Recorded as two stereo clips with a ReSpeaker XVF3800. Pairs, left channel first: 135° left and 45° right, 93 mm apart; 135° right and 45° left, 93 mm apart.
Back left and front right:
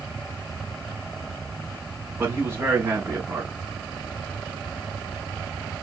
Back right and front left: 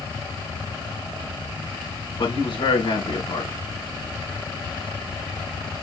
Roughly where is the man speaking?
Right.